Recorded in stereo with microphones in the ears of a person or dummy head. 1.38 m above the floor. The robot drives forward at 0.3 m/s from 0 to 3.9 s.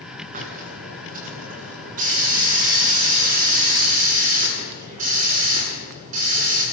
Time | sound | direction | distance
0.3 | a hiss | 40° right (ahead or behind) | 9 m